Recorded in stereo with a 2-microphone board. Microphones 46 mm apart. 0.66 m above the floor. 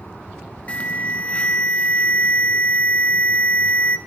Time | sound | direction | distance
0.7 | an alarm | 25° left (ahead or behind) | 0.5 m